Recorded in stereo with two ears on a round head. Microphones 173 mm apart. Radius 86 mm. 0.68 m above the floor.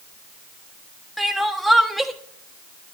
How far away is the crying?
About 1.2 m.